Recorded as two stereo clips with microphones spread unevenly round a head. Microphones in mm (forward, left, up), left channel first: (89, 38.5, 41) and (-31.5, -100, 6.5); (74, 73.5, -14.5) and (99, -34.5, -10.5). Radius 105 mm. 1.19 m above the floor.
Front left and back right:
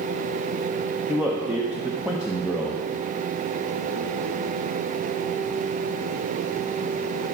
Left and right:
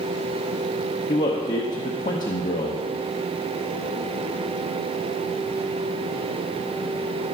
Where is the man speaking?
145° left, 0.7 m.